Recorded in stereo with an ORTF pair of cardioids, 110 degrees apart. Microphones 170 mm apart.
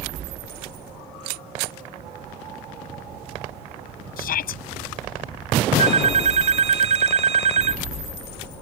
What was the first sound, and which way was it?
A shout, 60° left.